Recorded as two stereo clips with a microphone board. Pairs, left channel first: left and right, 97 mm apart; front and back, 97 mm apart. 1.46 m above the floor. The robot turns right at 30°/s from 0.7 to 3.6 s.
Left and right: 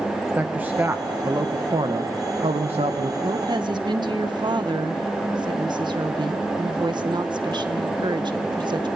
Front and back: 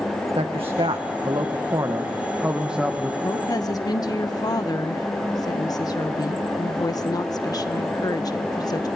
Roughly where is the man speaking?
Behind.